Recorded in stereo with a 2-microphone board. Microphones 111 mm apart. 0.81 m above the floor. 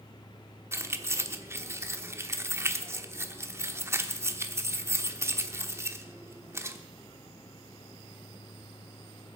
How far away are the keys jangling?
About 1.1 m.